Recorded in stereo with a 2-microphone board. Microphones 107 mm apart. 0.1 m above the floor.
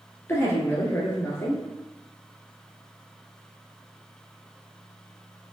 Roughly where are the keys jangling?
No keys jangling in this recording.